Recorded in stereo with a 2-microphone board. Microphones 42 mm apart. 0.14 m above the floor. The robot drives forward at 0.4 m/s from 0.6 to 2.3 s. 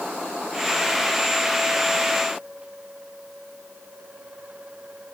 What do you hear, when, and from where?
Only background noise.